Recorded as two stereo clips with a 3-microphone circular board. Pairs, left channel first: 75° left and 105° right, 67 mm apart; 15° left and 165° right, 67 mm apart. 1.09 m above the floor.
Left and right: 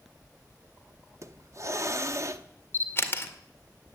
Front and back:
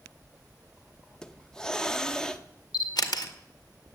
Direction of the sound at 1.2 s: 65° right.